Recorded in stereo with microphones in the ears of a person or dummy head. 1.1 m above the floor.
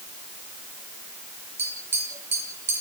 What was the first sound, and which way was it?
Tapping, 15° right (ahead or behind).